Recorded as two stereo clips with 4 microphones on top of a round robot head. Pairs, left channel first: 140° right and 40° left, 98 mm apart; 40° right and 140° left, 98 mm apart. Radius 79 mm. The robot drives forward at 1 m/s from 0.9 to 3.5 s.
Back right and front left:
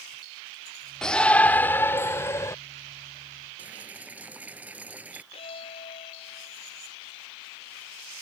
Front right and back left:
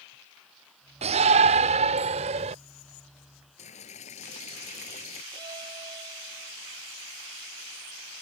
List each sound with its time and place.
1.0 s a shout: 135° left; by 2.5 s 155° left
3.6 s boiling: 40° right
5.3 s a violin: 170° right